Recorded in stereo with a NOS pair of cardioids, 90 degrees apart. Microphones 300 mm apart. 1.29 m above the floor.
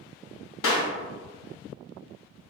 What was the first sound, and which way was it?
A clap, 45° left.